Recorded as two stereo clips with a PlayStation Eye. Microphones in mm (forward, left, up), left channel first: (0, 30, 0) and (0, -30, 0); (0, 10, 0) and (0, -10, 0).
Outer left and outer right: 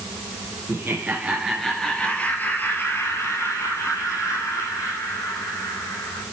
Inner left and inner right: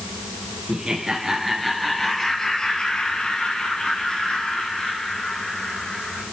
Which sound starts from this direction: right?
Laughter, at 0.7 s.